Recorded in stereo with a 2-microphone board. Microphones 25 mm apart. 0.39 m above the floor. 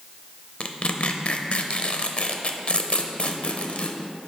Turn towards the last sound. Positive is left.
turn(degrees=55)  # may be behind; listen again after turning